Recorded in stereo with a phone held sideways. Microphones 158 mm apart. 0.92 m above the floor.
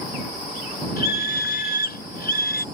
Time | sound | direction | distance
1.0 | a scream | 75° left (ahead or behind) | ?